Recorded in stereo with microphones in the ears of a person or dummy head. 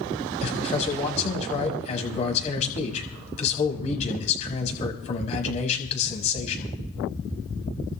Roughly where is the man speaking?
Left.